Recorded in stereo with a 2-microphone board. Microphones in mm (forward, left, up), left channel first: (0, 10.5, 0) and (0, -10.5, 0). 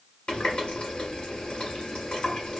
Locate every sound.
0.3 s a running tap: 50° left (ahead or behind), 1.1 m